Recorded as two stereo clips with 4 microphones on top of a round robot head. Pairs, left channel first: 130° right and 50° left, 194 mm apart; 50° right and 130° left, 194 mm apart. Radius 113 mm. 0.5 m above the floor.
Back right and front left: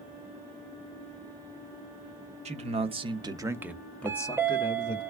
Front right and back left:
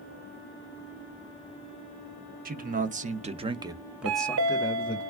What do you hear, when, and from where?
2.5 s a man speaking: 100° left, 1.1 m; by 5.0 s 95° right, 0.8 m
4.0 s a chime: 130° left, 0.6 m